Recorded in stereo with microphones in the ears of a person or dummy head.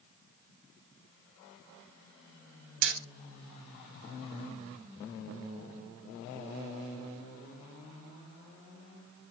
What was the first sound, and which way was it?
Hammering, 60° right (ahead or behind).